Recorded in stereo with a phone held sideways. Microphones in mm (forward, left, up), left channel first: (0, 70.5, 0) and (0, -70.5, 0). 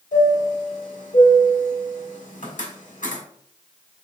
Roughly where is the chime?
Left.